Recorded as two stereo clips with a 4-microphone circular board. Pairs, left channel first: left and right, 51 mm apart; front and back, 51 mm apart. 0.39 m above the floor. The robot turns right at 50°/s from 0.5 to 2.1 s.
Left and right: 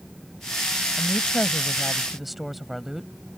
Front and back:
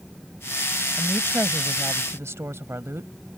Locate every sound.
1.0 s a woman speaking: 125° left; by 3.1 s 175° right